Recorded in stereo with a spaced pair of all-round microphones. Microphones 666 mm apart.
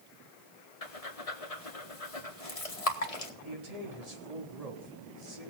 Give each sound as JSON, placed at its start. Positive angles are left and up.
{"t": 0.8, "sound": "breathing", "side_deg": 60, "distance_m": 1.7}
{"t": 3.4, "sound": "a man speaking", "side_deg": -65, "distance_m": 3.5}